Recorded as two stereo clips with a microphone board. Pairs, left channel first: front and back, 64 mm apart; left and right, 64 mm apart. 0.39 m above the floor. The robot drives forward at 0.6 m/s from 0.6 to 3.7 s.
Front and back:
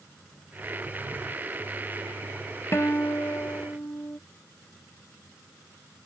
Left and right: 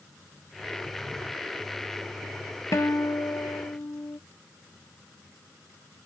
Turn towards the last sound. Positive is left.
turn(degrees=55)